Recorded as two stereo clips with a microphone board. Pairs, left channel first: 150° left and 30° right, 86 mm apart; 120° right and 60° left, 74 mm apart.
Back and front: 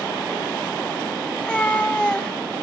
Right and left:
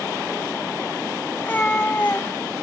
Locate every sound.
1.3 s a cat meowing: 145° right, 0.5 m